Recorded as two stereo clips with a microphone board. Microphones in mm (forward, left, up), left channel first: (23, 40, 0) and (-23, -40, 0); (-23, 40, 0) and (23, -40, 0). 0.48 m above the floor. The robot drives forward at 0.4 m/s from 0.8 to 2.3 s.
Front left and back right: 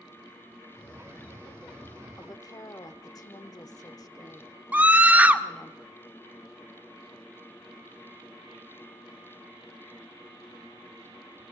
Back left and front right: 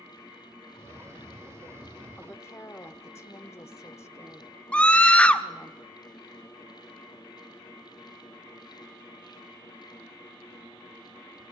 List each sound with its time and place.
2.2 s a woman speaking: 70° left, 0.9 m; by 5.7 s 75° left, 0.9 m
4.7 s a scream: 175° right, 0.8 m